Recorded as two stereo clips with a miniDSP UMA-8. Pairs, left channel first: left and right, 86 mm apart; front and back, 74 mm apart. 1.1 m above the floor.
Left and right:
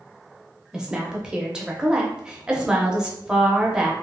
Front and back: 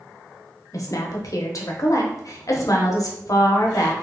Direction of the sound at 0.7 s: 10° right.